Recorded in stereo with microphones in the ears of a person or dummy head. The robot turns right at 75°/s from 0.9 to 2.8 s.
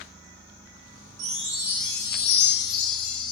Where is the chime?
45° right, 0.8 m; by 3.3 s 75° left, 0.8 m.